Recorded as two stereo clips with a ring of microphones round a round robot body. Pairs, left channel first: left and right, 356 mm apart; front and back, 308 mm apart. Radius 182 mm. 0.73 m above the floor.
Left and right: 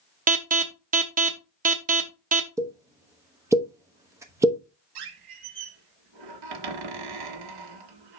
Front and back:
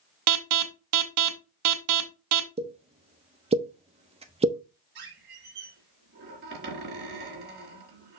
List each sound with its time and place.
0.3 s an alarm: 155° right, 1.0 m
2.6 s a pop: 155° right, 1.0 m
5.0 s a squeak: 115° right, 1.4 m